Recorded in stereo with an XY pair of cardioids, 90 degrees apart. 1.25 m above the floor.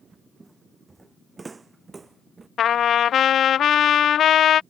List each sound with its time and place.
0.4 s footsteps: 25° right; by 2.5 s 30° right
2.6 s a trumpet: 70° left